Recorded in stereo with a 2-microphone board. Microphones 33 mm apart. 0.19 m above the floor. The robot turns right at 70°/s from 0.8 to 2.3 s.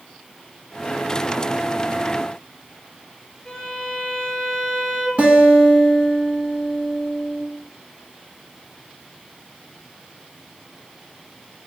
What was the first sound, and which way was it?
A violin, 20° left (ahead or behind).